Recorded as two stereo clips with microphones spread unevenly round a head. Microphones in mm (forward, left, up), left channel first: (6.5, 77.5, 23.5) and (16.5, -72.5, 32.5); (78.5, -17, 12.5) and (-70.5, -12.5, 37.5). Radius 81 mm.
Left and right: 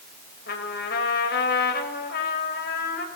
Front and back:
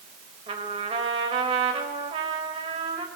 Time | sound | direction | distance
0.5 | a trumpet | 120° left | 4.5 m